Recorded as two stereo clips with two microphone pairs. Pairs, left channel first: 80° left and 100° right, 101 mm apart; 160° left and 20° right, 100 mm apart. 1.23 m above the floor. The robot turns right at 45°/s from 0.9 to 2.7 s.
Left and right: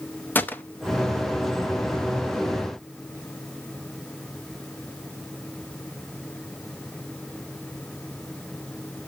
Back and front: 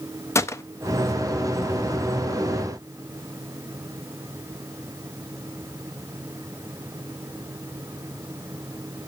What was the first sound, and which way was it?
A gunshot, 140° left.